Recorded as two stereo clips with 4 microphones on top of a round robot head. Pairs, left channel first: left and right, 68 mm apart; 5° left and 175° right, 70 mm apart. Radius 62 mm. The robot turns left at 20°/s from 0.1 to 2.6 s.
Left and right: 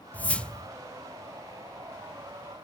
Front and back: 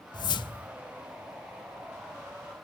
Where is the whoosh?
20° left, 0.7 m; by 0.7 s 10° left, 0.7 m.